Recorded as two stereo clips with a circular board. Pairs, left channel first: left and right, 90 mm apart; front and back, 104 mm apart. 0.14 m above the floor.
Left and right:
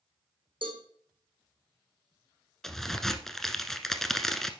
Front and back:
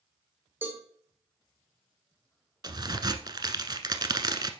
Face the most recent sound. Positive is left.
turn(degrees=175)